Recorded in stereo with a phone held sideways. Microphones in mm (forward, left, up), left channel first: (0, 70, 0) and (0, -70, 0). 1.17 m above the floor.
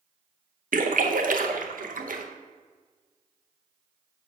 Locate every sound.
0.7 s a splash: 80° right, 0.7 m